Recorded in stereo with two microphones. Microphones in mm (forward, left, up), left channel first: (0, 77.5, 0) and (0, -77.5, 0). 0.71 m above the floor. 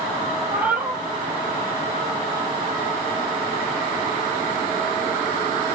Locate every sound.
0.5 s a cat meowing: 10° right (ahead or behind), 2.0 m